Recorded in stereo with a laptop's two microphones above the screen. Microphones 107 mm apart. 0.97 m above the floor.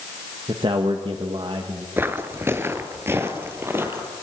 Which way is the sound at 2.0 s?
20° right (ahead or behind).